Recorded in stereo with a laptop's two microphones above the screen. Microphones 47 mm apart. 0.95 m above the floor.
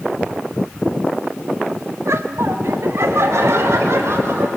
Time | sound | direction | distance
2.0 | laughter | 70° right (ahead or behind) | 1.3 m